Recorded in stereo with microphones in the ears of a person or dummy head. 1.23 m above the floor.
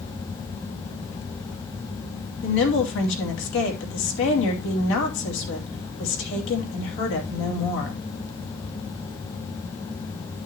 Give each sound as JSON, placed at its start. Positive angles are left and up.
{"t": 2.4, "sound": "a woman speaking", "side_deg": 70, "distance_m": 2.5}